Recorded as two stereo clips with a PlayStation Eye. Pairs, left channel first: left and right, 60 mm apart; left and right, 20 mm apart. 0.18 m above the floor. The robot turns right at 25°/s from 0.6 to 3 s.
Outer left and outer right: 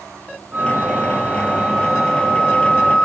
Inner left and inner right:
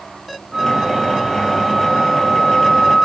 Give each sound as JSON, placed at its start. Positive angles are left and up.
{"t": 0.5, "sound": "a flute", "azimuth_deg": -40, "distance_m": 1.3}